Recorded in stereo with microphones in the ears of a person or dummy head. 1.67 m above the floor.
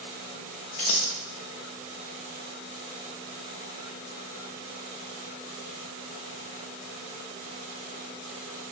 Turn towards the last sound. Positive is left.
turn(degrees=30)  # may be behind; listen again after turning